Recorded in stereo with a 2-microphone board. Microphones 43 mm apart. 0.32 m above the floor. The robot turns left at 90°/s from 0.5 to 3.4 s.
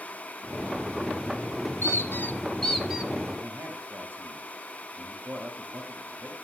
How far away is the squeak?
About 1.6 m.